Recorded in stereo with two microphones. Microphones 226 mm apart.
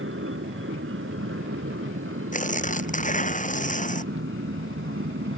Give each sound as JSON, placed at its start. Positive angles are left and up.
{"t": 0.0, "sound": "an aircraft", "side_deg": -65}
{"t": 2.3, "sound": "tearing paper", "side_deg": 35}